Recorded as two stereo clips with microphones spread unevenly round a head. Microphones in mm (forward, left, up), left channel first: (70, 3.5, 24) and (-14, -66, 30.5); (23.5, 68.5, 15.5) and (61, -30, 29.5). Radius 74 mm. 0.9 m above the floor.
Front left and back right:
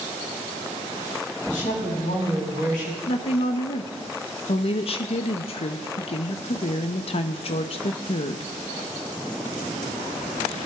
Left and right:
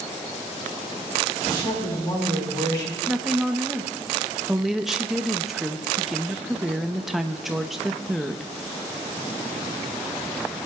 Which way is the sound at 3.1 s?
20° left.